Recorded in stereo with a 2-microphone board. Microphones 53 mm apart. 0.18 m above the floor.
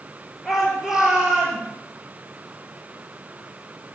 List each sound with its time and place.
0.5 s a shout: centre (ahead or behind), 4 m; by 1.6 s 15° right (ahead or behind), 5 m